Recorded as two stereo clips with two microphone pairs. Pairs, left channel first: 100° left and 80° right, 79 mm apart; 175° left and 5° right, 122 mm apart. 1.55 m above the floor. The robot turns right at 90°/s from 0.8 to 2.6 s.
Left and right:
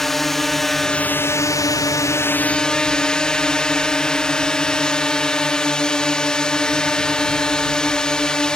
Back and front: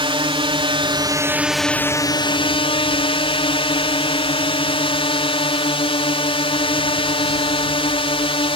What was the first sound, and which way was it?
A drone, 15° left.